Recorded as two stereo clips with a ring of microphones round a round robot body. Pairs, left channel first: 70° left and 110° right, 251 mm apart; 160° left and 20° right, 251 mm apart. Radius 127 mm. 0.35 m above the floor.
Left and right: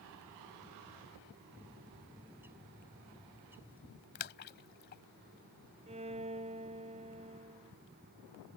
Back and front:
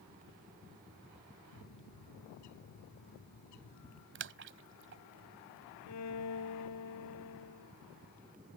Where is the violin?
Straight behind.